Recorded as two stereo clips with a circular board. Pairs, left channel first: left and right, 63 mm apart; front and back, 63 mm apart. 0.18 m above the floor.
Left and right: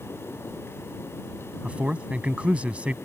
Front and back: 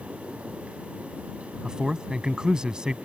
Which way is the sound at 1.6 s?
120° right.